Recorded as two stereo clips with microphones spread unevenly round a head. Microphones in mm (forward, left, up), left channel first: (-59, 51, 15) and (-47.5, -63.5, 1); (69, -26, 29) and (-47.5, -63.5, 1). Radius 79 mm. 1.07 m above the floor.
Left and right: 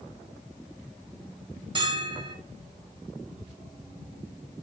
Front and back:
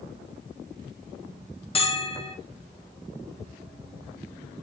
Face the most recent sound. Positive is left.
turn(degrees=-30)